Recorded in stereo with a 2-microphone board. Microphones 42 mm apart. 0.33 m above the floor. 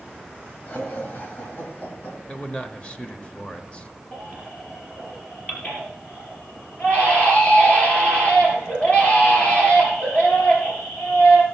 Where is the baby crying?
35° left (ahead or behind), 3.5 m.